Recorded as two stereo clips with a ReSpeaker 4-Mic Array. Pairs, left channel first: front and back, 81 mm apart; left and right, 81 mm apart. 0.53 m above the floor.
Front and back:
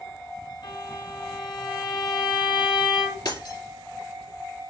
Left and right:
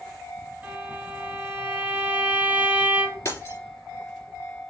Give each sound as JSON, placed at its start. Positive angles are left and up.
{"t": 0.6, "sound": "a violin", "azimuth_deg": -20, "distance_m": 2.5}
{"t": 3.2, "sound": "breaking glass", "azimuth_deg": 35, "distance_m": 2.5}